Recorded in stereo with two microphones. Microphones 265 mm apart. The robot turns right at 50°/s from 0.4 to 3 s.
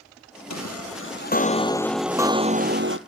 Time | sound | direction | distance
0.5 | a chime | 105° left | 1.0 m